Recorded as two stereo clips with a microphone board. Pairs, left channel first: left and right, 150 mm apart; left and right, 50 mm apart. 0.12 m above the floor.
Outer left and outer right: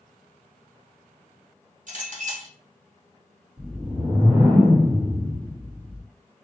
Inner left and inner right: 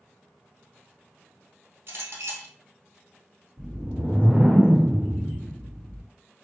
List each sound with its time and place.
1.9 s a clink: 55° right (ahead or behind), 1.6 m
3.6 s a whoosh: 30° right (ahead or behind), 1.7 m